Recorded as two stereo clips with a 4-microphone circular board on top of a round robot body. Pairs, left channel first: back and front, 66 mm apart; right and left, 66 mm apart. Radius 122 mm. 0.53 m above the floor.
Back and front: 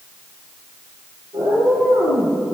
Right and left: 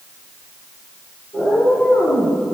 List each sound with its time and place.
1.3 s a cat meowing: 20° right, 6 m; by 2.4 s 25° right, 7.5 m